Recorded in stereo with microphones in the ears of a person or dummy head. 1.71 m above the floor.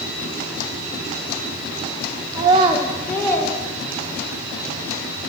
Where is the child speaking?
30° right (ahead or behind), 0.6 m; by 4.4 s 15° left (ahead or behind), 2 m.